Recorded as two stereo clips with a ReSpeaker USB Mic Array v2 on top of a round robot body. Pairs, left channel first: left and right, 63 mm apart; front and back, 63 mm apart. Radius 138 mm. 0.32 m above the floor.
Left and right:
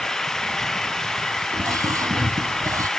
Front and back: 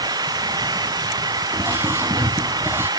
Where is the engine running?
175° left.